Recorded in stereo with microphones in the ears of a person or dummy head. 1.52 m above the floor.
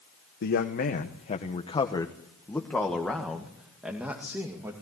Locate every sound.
0.4 s a man speaking: 60° left (ahead or behind), 1.3 m; by 4.7 s 10° right (ahead or behind), 2.5 m